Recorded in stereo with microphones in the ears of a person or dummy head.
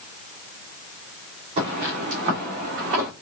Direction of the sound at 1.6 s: 30° right (ahead or behind).